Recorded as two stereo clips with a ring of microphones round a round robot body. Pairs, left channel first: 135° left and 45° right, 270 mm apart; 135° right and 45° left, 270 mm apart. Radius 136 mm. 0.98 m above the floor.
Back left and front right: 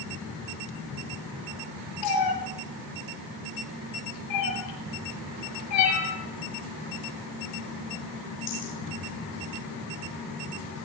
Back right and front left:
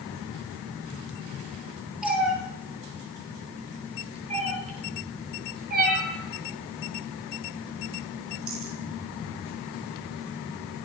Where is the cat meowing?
130° left, 9 m; by 8.8 s 85° left, 10.5 m.